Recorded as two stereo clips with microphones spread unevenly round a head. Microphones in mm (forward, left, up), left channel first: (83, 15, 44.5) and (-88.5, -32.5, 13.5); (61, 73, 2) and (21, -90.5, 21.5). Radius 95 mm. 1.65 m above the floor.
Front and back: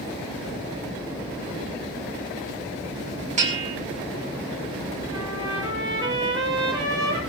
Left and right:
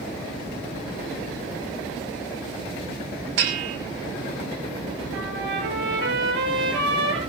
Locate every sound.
3.4 s a bell: 110° right, 3 m
5.1 s a trumpet: 95° right, 7 m